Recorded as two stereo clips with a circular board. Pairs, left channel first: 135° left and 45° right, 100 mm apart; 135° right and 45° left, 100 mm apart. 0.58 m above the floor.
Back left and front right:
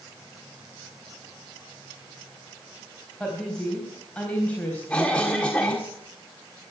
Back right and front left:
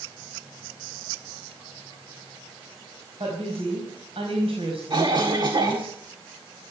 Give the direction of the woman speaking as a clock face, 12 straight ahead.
10 o'clock.